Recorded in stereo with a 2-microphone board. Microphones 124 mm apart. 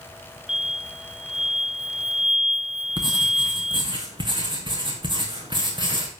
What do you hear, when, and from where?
0.5 s an explosion: 5° right (ahead or behind), 1.1 m
3.0 s writing: 40° right (ahead or behind), 2.5 m